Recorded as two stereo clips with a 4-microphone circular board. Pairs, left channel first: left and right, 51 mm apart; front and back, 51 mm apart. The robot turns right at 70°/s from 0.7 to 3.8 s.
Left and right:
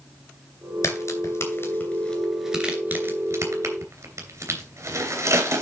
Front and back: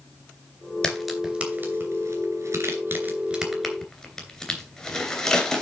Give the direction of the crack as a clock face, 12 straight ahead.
10 o'clock.